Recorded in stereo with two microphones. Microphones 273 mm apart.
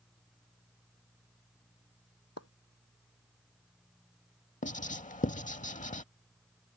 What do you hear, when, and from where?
2.4 s a splash: 75° left (ahead or behind)
4.6 s writing: 30° left (ahead or behind)